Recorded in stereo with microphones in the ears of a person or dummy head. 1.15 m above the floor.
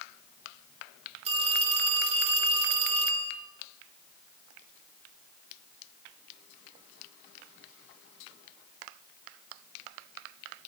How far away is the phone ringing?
About 7.5 m.